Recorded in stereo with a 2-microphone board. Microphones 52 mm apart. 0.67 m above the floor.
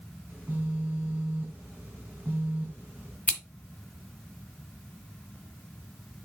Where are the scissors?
25° left (ahead or behind), 1.5 m.